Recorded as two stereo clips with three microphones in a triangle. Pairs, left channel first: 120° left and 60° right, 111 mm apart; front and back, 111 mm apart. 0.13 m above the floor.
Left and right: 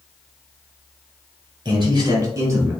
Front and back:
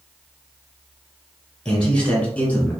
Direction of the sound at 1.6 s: 80° right.